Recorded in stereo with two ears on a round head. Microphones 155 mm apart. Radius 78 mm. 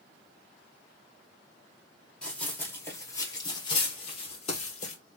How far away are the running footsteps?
About 1.7 m.